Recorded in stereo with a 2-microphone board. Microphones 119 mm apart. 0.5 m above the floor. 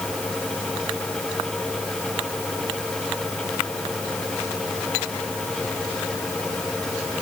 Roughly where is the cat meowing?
No cat meowing in this recording.